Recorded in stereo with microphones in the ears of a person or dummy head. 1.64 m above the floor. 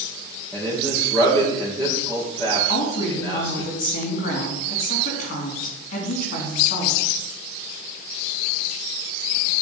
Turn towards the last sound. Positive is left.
turn(degrees=60)  # may be behind; listen again after turning